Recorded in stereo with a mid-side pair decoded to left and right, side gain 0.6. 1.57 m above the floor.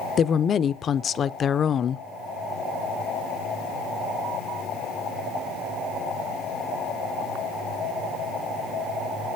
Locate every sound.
0.2 s a woman speaking: 45° left, 0.6 m